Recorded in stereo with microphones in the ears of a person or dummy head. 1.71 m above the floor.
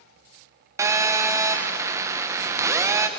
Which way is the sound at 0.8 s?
15° right (ahead or behind).